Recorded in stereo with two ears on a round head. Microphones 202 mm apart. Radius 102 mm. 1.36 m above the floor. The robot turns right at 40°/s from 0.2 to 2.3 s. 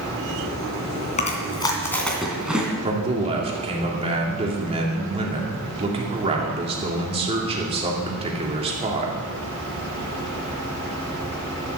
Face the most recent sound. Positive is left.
turn(degrees=-25)  # may be behind; listen again after turning